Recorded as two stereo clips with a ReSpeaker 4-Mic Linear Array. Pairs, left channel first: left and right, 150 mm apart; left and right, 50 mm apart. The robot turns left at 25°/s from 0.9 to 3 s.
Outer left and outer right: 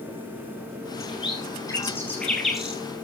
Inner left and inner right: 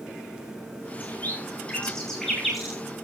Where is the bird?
40° left (ahead or behind), 7 m; by 2.8 s 5° right (ahead or behind), 7 m.